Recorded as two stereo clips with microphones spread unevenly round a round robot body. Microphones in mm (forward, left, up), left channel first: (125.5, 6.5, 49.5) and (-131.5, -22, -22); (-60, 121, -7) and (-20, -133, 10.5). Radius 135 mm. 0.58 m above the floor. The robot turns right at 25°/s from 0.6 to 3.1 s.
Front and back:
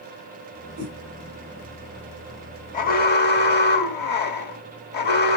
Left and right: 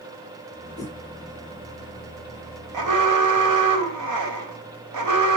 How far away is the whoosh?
About 6 m.